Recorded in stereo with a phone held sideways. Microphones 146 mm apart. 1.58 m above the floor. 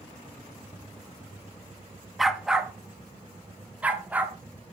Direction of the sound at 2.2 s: Centre (ahead or behind).